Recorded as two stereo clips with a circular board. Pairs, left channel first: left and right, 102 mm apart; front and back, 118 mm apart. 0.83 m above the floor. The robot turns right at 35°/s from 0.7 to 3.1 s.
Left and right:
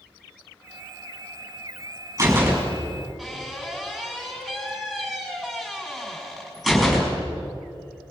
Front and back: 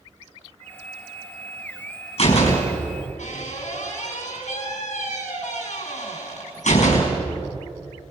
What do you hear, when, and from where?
2.2 s a door slam: 30° right, 5.5 m; by 7.2 s 5° left, 5.5 m